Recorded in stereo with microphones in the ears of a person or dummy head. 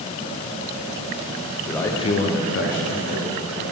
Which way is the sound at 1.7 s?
5° left (ahead or behind).